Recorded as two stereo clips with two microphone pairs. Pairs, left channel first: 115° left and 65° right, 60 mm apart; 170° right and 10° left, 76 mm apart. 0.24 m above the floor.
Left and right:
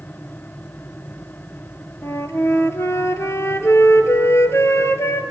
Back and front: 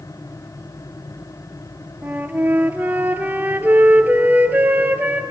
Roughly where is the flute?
Left.